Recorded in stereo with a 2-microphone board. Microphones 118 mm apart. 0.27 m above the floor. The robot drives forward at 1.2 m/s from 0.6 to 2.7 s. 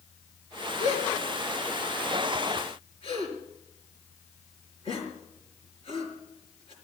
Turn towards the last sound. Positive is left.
turn(degrees=50)  # may be behind; listen again after turning